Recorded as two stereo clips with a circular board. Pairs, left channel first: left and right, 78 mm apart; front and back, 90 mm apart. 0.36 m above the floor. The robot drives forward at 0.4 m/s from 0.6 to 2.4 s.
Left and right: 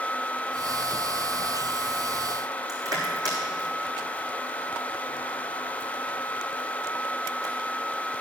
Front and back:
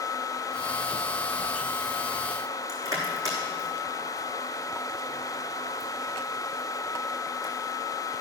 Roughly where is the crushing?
Behind right.